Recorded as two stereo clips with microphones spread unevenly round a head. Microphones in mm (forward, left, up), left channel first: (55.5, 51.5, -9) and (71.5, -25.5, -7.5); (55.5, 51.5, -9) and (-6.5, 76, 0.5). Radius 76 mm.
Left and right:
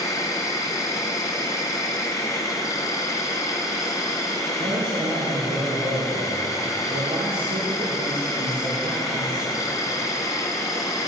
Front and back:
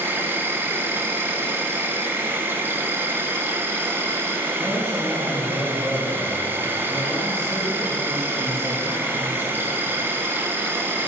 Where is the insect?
105° left, 1.0 m.